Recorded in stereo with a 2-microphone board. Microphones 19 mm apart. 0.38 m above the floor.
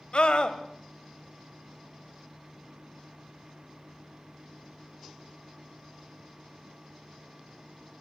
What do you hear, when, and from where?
0.1 s a scream: 55° left (ahead or behind), 2.0 m